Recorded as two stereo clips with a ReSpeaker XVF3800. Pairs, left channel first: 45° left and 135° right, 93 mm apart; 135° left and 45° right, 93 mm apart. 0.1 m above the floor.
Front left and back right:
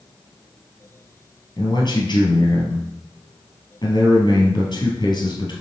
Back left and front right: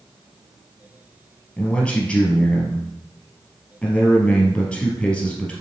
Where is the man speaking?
60° left, 2.5 m.